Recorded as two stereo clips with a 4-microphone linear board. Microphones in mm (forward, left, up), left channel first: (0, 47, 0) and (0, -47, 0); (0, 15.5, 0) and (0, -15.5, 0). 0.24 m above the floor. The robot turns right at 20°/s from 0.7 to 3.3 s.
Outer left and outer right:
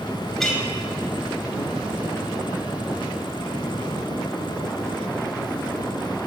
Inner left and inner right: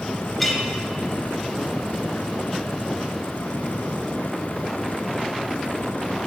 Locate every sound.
0.4 s a clink: 5° left (ahead or behind), 0.8 m